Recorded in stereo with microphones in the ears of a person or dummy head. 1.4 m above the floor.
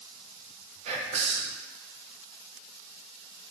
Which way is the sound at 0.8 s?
40° right (ahead or behind).